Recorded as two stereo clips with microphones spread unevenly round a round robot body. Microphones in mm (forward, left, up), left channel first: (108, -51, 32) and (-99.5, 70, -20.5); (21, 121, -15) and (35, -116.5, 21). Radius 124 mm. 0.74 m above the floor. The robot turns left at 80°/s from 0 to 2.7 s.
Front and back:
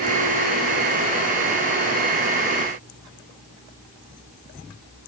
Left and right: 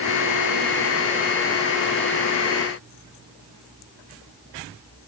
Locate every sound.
Only background noise.